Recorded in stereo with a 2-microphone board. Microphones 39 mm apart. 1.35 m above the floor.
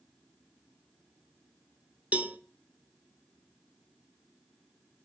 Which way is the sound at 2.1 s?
35° right (ahead or behind).